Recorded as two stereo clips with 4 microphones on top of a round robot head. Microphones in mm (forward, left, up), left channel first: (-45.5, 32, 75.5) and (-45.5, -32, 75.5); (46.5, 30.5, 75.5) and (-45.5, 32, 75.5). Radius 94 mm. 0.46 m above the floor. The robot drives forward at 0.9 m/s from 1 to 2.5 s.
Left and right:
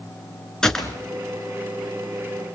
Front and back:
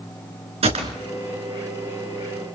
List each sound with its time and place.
0.6 s a gunshot: 170° left, 3 m